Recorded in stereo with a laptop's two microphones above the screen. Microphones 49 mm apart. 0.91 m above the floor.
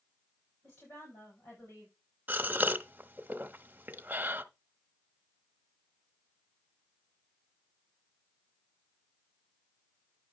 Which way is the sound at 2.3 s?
35° right (ahead or behind).